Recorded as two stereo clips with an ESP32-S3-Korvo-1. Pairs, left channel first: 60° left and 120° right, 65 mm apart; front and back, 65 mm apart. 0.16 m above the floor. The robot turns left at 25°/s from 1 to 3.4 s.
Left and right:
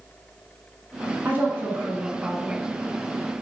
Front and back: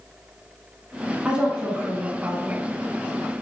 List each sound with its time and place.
1.2 s a woman speaking: 125° right, 1.1 m; by 2.6 s 160° right, 1.1 m